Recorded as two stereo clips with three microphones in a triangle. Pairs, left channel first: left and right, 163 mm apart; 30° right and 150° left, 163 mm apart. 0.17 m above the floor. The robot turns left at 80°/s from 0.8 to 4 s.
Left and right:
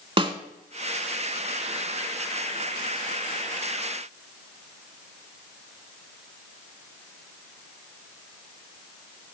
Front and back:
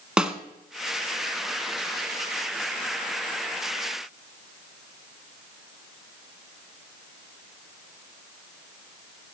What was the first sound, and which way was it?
A snare drum, 125° right.